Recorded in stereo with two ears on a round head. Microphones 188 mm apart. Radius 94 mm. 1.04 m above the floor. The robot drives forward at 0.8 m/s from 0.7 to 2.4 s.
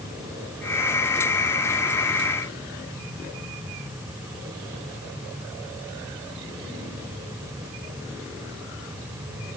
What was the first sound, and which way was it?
Only background noise.